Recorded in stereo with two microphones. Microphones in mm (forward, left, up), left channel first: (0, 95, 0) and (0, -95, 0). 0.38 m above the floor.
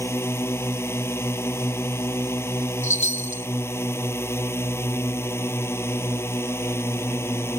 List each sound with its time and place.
0.0 s a drone: 10° left (ahead or behind)
2.8 s a chime: 85° left